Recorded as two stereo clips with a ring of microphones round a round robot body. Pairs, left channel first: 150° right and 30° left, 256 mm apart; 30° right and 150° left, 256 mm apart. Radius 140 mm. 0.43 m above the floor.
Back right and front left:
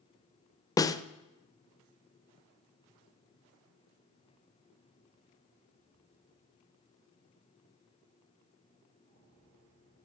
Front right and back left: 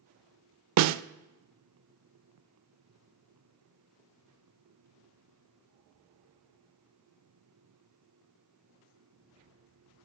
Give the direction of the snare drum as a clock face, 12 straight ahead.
8 o'clock.